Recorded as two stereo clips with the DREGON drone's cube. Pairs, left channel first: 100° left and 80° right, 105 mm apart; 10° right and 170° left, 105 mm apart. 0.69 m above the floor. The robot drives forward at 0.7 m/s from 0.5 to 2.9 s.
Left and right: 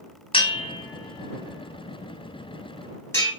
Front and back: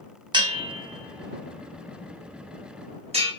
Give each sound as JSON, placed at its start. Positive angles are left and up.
{"t": 0.3, "sound": "a bell", "azimuth_deg": 130, "distance_m": 0.6}